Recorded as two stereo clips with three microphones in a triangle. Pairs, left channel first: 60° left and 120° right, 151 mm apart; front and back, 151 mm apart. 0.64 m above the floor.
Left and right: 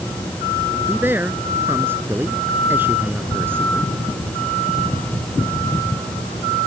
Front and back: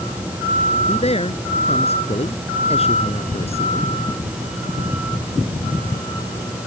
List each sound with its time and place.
0.8 s a man speaking: 45° right